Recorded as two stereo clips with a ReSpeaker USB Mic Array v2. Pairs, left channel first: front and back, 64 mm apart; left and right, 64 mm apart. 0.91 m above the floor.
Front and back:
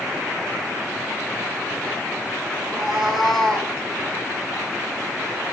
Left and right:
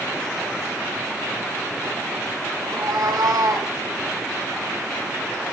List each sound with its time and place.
2.6 s a cat meowing: 100° right, 4 m; by 3.7 s 75° right, 3 m